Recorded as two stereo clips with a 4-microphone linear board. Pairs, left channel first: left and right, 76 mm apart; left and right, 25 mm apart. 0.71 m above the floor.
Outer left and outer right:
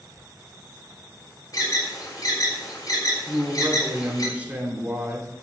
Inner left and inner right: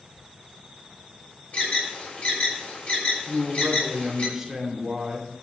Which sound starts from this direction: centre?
A man speaking, at 3.3 s.